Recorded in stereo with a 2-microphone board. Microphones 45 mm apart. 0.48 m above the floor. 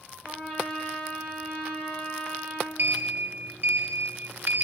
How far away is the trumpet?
About 5 m.